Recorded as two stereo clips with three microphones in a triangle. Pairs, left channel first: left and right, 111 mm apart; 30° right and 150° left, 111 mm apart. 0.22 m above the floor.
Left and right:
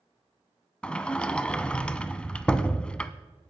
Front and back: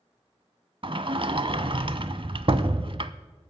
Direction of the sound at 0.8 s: 170° left.